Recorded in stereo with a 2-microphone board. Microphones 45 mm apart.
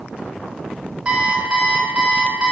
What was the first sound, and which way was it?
An alarm clock, 20° right (ahead or behind).